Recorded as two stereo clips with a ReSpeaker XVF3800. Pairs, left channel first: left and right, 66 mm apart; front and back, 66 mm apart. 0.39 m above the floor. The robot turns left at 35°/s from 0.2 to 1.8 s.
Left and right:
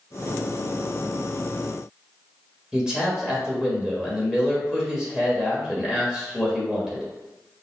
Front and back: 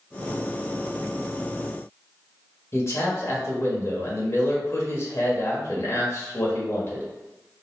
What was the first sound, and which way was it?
A man speaking, 15° right.